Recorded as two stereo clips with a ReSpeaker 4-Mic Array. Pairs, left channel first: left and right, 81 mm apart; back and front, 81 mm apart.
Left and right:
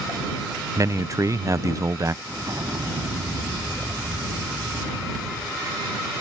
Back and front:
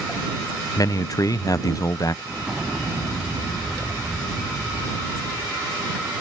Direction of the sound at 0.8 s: 140° right.